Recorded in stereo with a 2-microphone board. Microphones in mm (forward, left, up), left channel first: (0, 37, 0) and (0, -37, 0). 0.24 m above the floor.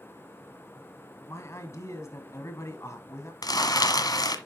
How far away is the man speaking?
About 1.5 m.